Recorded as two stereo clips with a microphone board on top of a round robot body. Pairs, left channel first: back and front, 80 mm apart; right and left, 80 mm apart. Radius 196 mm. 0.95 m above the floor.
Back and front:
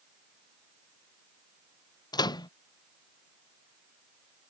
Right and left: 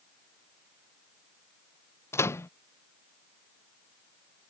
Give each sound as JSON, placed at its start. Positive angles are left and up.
{"t": 2.1, "sound": "a microwave", "azimuth_deg": -145}